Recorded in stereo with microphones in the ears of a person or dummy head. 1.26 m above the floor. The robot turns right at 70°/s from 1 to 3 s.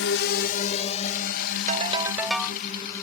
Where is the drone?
75° left (ahead or behind); by 3.0 s 15° left (ahead or behind).